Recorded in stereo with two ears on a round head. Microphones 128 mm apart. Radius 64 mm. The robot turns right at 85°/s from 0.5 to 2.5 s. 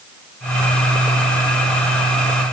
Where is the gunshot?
I don't hear a gunshot.